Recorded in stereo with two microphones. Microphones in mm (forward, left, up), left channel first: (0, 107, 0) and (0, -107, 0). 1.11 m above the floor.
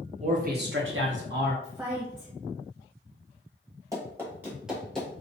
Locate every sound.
0.2 s a man speaking: 30° right (ahead or behind), 0.9 m; by 1.5 s 45° right (ahead or behind), 1.0 m
1.6 s a woman speaking: 10° right (ahead or behind), 0.6 m
3.9 s running footsteps: 15° right (ahead or behind), 1.2 m; by 5.2 s 10° left (ahead or behind), 1.1 m